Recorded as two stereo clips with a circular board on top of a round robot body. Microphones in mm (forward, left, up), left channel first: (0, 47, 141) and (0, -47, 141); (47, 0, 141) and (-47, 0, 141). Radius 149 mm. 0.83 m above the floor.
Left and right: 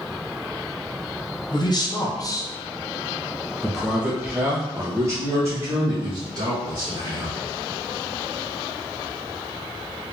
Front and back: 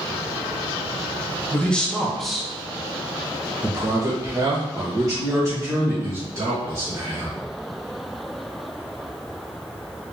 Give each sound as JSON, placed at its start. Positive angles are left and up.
{"t": 1.5, "sound": "a man speaking", "azimuth_deg": 75, "distance_m": 1.3}